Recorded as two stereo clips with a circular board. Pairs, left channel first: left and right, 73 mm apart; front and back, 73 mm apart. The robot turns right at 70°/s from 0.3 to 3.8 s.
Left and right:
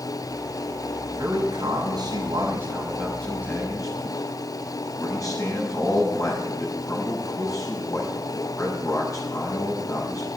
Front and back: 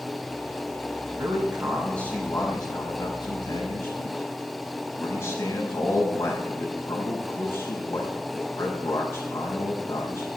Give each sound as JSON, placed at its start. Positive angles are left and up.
{"t": 1.1, "sound": "a man speaking", "azimuth_deg": -130, "distance_m": 5.5}